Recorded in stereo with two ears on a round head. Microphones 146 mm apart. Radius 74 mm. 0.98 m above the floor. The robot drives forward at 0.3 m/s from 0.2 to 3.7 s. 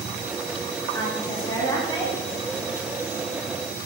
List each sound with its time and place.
0.9 s a woman speaking: 25° left (ahead or behind), 2.5 m